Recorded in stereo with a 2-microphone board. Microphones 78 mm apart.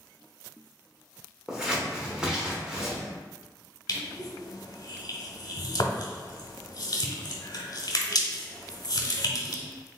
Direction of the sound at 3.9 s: 60° left (ahead or behind).